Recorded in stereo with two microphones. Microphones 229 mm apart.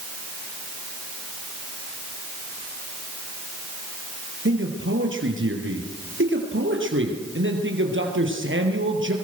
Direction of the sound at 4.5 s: 60° right (ahead or behind).